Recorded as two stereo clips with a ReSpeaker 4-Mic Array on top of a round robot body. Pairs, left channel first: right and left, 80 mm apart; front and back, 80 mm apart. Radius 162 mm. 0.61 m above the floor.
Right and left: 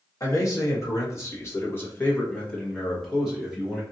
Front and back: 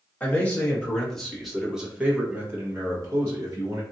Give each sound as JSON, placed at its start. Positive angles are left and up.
{"t": 0.2, "sound": "a man speaking", "azimuth_deg": -65, "distance_m": 1.6}